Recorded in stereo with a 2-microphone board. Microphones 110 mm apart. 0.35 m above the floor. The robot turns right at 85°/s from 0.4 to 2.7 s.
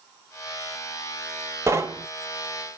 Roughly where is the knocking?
Right.